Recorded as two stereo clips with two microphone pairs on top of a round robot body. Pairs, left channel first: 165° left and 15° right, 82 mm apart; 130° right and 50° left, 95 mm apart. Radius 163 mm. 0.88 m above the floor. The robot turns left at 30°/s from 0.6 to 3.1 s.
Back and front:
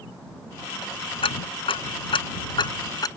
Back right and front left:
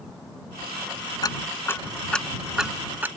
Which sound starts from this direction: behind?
Ticking, at 1.2 s.